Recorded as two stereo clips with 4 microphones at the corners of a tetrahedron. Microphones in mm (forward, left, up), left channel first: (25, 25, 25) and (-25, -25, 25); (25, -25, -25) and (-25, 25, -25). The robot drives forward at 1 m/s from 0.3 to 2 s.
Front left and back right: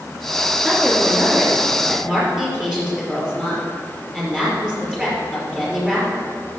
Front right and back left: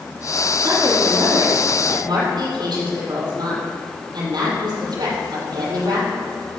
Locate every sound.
0.6 s a woman speaking: 135° left, 4.5 m; by 6.2 s 145° left, 5.5 m